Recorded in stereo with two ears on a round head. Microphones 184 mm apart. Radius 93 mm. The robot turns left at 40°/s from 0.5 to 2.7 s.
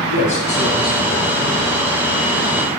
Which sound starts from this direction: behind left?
A man speaking, at 0.1 s.